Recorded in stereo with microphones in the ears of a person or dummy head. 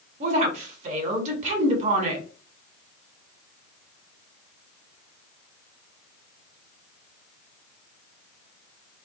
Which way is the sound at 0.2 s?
40° right (ahead or behind).